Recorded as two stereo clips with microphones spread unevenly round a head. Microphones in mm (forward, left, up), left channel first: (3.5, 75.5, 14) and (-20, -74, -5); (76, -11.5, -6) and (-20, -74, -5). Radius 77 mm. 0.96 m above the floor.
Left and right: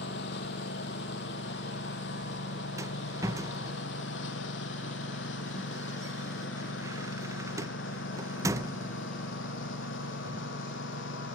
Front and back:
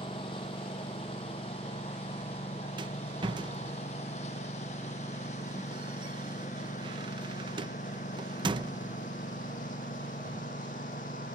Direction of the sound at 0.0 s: 95° left.